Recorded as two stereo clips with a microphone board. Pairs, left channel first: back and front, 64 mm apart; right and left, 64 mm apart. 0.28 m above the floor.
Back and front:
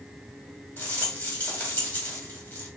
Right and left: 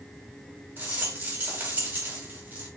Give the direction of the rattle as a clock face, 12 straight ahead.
8 o'clock.